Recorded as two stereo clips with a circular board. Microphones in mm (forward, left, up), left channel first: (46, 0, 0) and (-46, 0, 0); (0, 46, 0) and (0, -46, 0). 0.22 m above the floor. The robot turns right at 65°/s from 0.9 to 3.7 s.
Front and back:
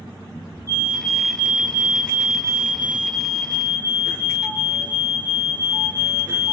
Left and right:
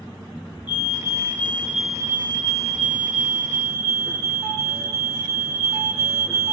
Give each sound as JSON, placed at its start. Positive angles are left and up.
{"t": 0.7, "sound": "a fire alarm", "azimuth_deg": 125, "distance_m": 5.5}